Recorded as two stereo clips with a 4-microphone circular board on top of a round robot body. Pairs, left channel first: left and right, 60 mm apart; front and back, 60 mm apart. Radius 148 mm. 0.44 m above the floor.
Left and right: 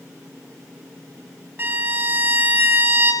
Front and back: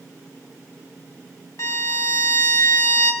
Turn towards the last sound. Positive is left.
turn(degrees=-35)